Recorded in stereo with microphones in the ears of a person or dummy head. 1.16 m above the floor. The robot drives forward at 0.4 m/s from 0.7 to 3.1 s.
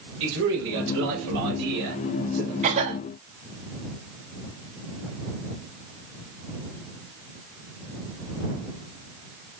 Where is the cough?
35° right (ahead or behind), 1.0 m; by 3.0 s 30° right (ahead or behind), 1.2 m.